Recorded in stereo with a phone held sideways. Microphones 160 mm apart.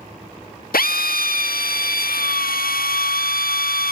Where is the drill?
80° left.